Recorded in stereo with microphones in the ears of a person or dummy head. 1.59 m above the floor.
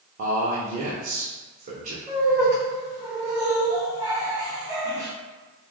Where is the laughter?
20° right (ahead or behind), 1.3 m.